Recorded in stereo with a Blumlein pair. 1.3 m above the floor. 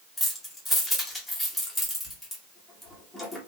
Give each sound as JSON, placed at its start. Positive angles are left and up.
{"t": 0.2, "sound": "keys jangling", "azimuth_deg": 5, "distance_m": 1.1}